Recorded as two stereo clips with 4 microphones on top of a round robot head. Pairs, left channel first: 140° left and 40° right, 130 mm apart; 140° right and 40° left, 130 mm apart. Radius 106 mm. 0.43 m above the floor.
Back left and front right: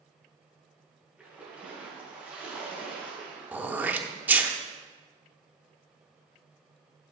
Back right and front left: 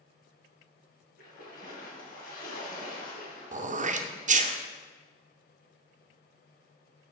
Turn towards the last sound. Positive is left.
turn(degrees=35)